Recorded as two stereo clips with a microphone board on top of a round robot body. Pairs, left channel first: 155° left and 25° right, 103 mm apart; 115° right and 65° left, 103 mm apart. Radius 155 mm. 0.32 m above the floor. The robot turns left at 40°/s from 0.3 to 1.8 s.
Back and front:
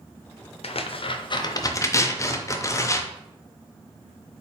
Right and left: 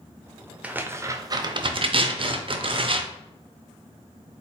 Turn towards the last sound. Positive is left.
turn(degrees=100)